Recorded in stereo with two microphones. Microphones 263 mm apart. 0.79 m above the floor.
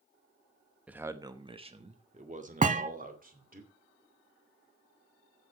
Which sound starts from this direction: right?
A thud, at 2.6 s.